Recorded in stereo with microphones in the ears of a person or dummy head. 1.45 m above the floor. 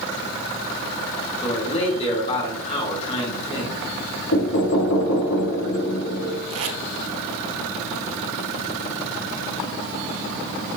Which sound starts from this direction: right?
Tape being pulled, at 6.5 s.